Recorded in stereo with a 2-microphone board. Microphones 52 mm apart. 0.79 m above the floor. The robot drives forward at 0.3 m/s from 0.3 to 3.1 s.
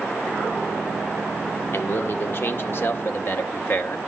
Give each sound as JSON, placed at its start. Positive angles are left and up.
{"t": 1.7, "sound": "a man speaking", "side_deg": 50, "distance_m": 1.8}